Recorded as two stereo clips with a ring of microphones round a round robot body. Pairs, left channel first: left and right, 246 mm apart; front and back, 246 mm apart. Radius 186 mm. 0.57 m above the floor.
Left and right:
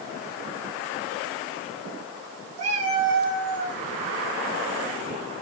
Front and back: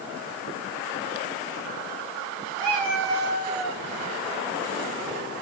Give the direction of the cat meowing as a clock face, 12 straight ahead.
3 o'clock.